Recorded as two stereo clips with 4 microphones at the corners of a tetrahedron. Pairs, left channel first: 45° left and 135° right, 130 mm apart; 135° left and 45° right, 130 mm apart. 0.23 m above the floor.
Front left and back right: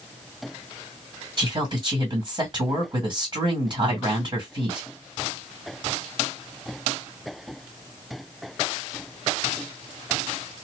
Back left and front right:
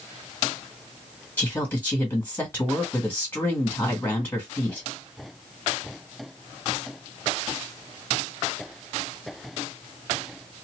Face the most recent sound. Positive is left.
turn(degrees=-160)